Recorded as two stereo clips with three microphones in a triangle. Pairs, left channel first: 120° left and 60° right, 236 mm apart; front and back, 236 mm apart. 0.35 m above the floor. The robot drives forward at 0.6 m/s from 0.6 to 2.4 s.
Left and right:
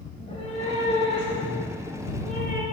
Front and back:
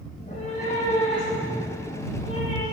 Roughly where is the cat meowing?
Ahead left.